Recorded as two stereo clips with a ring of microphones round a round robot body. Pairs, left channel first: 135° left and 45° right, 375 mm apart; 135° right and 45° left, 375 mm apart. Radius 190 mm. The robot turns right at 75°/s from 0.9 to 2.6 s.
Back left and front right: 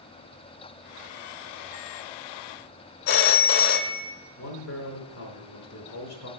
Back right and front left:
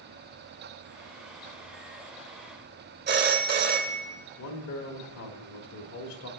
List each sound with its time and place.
3.1 s a phone ringing: 110° left, 0.7 m
4.4 s a man speaking: straight behind, 1.2 m